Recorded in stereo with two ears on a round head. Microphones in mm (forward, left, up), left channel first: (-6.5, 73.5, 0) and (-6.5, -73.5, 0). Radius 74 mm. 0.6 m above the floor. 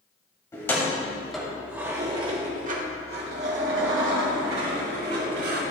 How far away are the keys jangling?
About 2 m.